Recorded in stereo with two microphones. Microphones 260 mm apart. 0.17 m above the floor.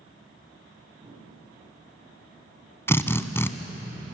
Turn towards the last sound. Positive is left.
turn(degrees=10)  # may be behind; listen again after turning